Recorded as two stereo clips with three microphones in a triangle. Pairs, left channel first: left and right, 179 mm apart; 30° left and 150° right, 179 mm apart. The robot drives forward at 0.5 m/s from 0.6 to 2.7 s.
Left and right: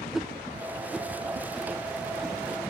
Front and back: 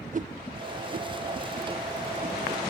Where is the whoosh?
175° right, 0.6 m; by 2.4 s straight behind, 1.5 m.